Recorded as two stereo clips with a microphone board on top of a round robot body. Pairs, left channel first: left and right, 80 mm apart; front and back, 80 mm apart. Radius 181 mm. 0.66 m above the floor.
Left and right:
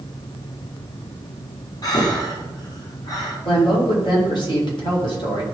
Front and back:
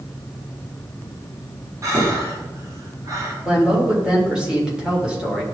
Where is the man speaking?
100° left, 3 m.